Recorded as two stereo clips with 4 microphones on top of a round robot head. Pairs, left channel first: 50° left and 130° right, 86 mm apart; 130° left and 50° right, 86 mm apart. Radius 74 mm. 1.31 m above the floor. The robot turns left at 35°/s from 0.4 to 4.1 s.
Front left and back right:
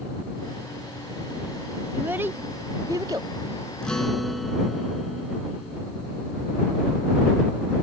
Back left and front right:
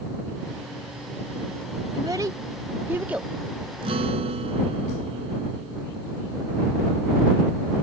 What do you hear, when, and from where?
1.9 s a child speaking: 75° right; by 3.3 s 120° right
3.8 s a guitar: 30° right; by 5.8 s 40° right